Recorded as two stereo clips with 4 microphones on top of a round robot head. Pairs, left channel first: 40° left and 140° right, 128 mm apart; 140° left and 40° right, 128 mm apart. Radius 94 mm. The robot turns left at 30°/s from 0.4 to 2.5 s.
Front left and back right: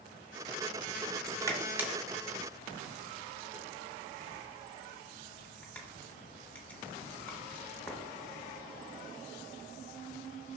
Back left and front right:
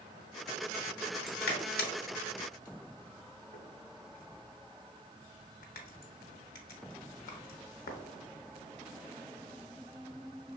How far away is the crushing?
About 0.9 m.